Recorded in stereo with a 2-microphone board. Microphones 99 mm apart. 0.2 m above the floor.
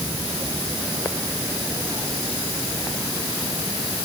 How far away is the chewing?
No chewing in this recording.